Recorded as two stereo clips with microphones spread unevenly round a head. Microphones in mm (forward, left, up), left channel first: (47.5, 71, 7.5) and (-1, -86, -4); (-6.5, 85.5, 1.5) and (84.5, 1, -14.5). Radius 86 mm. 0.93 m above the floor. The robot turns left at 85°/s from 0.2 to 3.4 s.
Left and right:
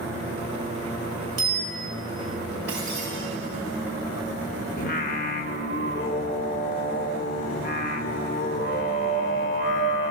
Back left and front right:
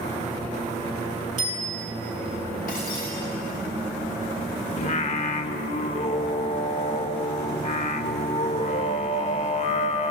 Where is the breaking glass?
175° left, 9.5 m; by 3.1 s 135° left, 9.5 m.